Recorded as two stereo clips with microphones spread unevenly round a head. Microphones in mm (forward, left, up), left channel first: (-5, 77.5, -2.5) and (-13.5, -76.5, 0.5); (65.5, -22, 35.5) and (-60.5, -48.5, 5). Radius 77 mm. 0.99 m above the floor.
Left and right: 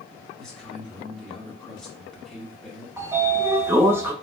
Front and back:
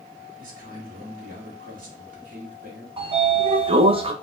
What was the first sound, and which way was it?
A man speaking, 175° left.